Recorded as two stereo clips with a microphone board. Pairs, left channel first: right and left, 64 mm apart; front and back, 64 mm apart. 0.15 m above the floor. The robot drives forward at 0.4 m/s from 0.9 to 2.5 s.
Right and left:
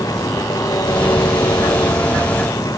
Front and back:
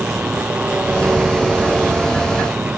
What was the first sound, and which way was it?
An engine running, 110° right.